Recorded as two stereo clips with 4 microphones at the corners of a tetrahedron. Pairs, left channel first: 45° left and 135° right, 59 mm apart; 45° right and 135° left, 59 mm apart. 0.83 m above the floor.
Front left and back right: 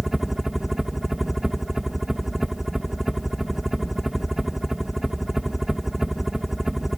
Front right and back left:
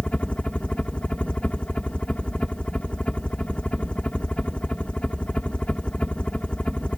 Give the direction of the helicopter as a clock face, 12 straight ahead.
2 o'clock.